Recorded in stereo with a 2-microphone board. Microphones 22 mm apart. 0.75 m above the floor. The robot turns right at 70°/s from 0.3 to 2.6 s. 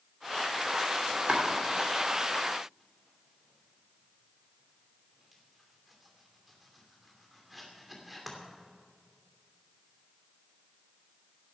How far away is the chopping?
About 2.5 m.